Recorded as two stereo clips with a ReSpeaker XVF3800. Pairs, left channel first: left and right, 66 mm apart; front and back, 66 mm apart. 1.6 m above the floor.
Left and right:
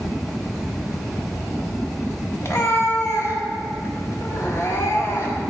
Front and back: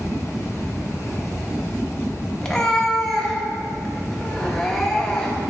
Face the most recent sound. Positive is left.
turn(degrees=80)